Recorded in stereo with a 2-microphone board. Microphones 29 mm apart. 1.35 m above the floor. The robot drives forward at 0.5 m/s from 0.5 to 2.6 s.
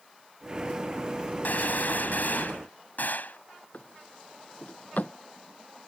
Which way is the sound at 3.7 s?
65° left (ahead or behind).